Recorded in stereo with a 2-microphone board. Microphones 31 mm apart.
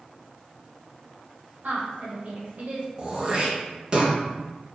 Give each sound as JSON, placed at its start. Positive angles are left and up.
{"t": 1.6, "sound": "a woman speaking", "side_deg": -65, "distance_m": 1.9}
{"t": 3.0, "sound": "throat clearing", "side_deg": -30, "distance_m": 1.0}